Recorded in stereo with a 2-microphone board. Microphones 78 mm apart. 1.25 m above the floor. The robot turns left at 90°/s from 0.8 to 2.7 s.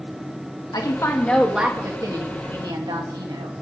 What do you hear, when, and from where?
0.7 s a woman speaking: 60° left, 2.5 m; by 3.5 s 110° right, 2.5 m